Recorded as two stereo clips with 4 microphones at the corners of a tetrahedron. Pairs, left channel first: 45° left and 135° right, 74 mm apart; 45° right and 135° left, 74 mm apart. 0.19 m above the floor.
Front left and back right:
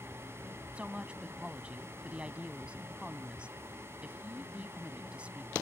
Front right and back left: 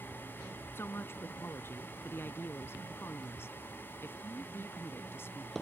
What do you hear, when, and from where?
0.8 s a woman speaking: 70° right